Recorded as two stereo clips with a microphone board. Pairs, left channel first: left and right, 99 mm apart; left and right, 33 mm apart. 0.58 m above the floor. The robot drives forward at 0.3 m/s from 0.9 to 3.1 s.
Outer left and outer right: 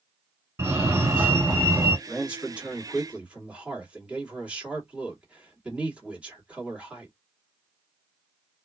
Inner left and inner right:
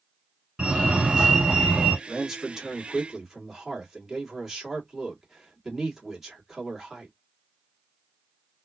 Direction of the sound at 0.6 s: 25° right (ahead or behind).